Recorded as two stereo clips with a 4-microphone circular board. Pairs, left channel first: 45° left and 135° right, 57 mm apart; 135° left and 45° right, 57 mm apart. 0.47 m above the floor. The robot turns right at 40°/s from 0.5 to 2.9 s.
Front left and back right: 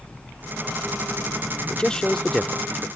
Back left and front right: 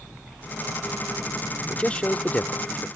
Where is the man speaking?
95° left; by 2.9 s 140° left.